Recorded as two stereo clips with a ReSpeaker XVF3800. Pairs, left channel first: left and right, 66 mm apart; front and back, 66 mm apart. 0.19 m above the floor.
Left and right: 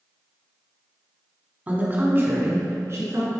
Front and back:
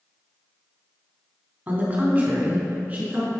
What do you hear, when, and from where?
1.7 s a woman speaking: 135° right, 1.3 m; by 3.3 s 115° right, 2 m